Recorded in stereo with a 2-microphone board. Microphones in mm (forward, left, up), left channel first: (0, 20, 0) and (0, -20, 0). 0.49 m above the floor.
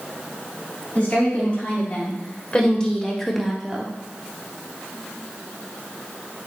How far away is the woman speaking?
About 3.5 m.